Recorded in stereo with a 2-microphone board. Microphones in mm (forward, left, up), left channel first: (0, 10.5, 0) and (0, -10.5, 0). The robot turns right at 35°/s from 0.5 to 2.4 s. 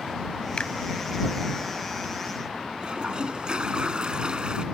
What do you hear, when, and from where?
0.6 s a finger snap: 50° left (ahead or behind)
2.8 s a toilet flushing: 45° right (ahead or behind)